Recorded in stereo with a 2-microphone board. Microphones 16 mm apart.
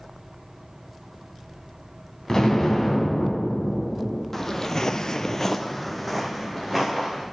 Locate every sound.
2.3 s an explosion: 45° left (ahead or behind), 2.5 m
4.3 s footsteps: 25° left (ahead or behind), 1.3 m; by 7.2 s centre (ahead or behind), 3.5 m